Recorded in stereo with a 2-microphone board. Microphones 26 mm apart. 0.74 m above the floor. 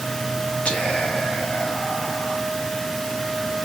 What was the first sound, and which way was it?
Whispering, 70° left (ahead or behind).